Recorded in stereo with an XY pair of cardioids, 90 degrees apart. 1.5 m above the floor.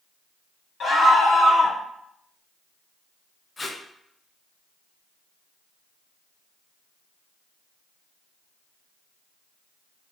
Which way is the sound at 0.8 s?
60° left.